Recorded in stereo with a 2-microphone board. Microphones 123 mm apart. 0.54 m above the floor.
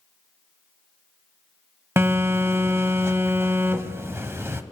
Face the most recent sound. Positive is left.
turn(degrees=-20)  # may be behind; listen again after turning